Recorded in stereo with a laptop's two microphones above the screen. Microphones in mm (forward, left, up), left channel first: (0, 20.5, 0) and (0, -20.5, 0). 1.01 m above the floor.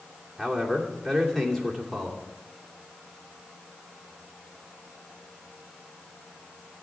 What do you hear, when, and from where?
0.4 s a man speaking: 5° left (ahead or behind), 3 m